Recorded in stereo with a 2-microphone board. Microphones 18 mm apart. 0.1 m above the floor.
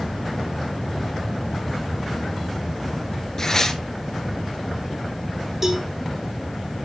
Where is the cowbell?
20° right (ahead or behind), 2.5 m.